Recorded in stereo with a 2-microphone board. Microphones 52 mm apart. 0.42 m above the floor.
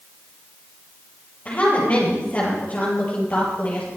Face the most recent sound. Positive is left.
turn(degrees=30)  # may be behind; listen again after turning